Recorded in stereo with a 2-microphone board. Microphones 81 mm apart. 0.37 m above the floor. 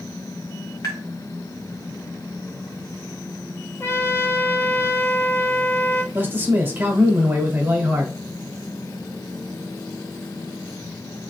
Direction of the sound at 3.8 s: 30° left (ahead or behind).